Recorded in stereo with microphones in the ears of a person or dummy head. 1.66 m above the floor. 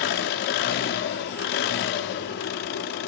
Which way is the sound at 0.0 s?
50° left (ahead or behind).